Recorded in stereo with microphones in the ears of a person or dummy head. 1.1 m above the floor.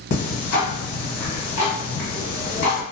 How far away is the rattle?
I don't hear a rattle.